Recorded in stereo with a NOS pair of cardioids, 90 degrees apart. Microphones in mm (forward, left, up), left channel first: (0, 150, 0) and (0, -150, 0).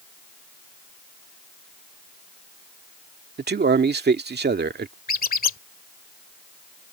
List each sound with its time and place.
3.4 s a man speaking: 35° right
5.1 s a squeak: 30° left